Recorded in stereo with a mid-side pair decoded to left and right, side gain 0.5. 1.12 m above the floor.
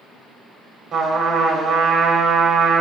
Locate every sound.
0.9 s a trumpet: 60° right, 1.5 m